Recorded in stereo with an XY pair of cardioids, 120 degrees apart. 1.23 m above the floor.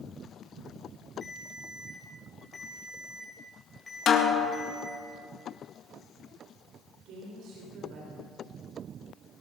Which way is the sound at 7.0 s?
65° right.